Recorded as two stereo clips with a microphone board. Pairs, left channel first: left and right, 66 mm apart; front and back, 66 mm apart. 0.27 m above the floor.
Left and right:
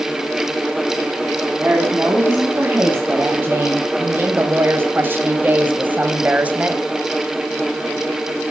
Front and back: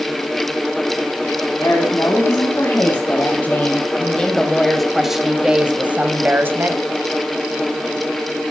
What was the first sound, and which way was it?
A woman speaking, 35° right.